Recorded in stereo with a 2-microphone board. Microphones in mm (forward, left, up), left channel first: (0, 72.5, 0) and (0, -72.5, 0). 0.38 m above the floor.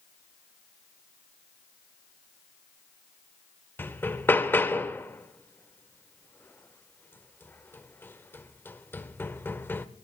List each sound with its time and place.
3.8 s hammering: 15° left (ahead or behind), 0.8 m